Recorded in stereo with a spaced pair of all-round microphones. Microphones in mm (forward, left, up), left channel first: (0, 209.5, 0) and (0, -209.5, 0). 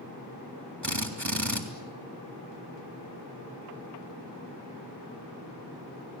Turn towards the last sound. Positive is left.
turn(degrees=-40)  # may be behind; listen again after turning